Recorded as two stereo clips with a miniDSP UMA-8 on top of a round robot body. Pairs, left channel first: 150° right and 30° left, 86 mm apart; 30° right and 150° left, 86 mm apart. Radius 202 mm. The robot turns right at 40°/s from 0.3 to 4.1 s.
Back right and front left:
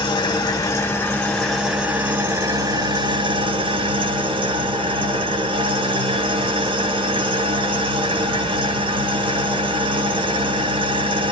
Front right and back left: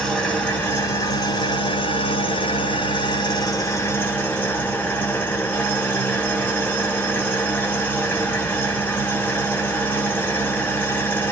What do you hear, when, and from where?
0.0 s an engine running: 110° right, 0.7 m; by 11.3 s 40° left, 0.7 m